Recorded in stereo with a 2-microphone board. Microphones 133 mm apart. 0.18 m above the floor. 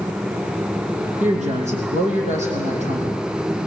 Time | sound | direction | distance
1.2 | a woman speaking | 60° right (ahead or behind) | 6.5 m